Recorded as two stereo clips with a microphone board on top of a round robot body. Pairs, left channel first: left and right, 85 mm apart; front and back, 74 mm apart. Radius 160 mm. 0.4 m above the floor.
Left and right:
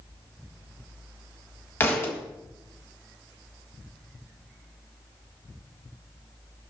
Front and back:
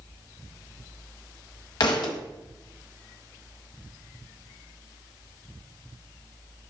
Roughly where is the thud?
Ahead left.